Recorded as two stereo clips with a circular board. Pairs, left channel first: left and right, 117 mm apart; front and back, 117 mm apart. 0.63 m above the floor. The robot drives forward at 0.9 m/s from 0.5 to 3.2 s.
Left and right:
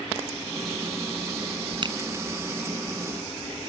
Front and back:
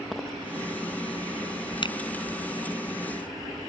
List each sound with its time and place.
1.8 s a finger snap: 45° right